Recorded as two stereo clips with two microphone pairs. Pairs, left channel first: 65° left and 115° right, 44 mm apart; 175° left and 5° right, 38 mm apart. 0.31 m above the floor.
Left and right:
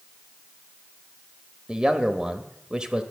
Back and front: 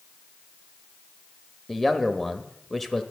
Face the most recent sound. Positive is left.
turn(degrees=-115)